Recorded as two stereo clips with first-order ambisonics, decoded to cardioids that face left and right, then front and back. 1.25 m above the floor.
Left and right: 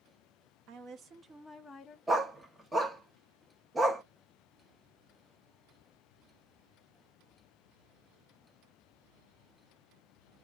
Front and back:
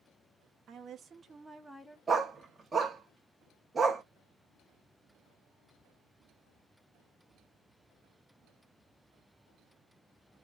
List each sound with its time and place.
0.7 s a woman speaking: 125° right, 0.9 m; by 2.0 s 70° left, 0.6 m
2.1 s a dog barking: 140° right, 0.6 m